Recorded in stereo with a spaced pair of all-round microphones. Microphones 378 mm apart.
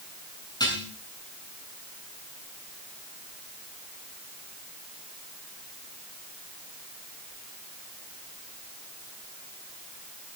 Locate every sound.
0.6 s dishes clattering: 10° left (ahead or behind), 7 m